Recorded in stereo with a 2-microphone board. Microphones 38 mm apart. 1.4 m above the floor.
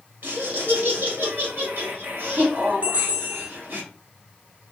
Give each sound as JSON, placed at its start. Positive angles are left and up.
{"t": 0.2, "sound": "laughter", "side_deg": -60, "distance_m": 1.3}
{"t": 2.8, "sound": "a bell", "side_deg": -40, "distance_m": 0.5}